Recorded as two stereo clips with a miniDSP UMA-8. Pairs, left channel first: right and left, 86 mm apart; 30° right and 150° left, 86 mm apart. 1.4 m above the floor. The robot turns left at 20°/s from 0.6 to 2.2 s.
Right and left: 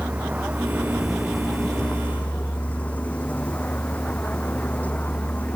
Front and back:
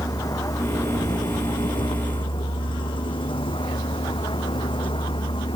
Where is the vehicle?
15° left; by 5.6 s 15° right.